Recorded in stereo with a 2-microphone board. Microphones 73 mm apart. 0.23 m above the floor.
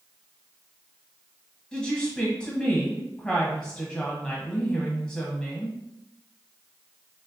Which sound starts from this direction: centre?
A woman speaking, at 1.7 s.